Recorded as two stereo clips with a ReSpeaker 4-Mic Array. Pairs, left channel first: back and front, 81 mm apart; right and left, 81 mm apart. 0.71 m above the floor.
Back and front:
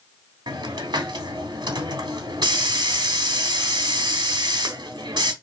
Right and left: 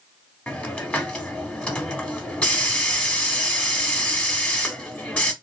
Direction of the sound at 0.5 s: 15° right.